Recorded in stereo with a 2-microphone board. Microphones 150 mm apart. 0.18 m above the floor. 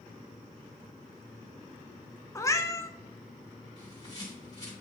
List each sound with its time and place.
2.4 s a cat meowing: 20° left (ahead or behind), 0.5 m
3.8 s a bird: 25° left (ahead or behind), 2 m